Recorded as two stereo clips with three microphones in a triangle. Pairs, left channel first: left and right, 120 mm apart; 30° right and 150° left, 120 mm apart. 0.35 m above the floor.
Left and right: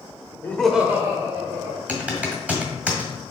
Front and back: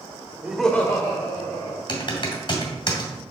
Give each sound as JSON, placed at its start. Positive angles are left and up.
{"t": 0.4, "sound": "laughter", "azimuth_deg": 100, "distance_m": 0.9}
{"t": 1.9, "sound": "typing on a keyboard", "azimuth_deg": -15, "distance_m": 1.9}